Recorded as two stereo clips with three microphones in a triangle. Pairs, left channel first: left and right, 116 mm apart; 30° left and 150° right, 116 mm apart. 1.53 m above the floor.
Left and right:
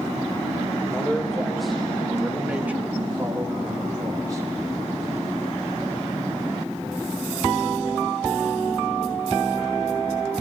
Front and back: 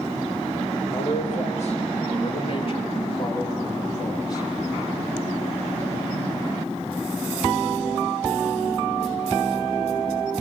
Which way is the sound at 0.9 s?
10° left.